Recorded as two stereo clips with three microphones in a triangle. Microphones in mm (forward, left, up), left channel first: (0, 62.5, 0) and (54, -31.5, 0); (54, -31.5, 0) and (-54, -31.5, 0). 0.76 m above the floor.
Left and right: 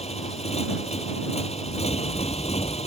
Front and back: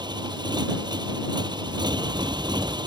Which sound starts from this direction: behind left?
A motorcycle, at 0.0 s.